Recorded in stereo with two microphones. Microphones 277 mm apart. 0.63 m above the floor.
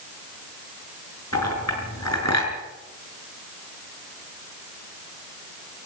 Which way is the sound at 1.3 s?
85° left.